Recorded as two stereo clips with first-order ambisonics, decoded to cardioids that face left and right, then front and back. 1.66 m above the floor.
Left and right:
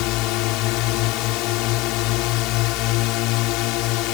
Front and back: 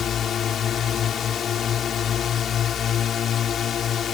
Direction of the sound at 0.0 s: 60° left.